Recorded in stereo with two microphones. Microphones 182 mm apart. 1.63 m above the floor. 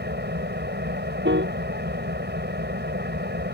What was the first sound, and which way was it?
An engine running, 75° right (ahead or behind).